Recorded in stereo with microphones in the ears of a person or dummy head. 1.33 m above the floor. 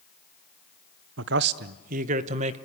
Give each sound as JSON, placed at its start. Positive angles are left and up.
{"t": 1.2, "sound": "a man speaking", "side_deg": -60, "distance_m": 0.6}